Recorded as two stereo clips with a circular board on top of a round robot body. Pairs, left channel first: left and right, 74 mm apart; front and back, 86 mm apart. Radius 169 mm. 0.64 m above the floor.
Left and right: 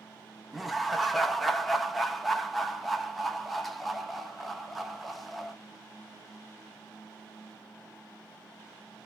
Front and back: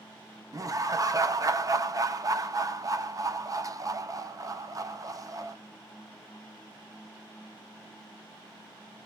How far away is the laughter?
About 0.8 m.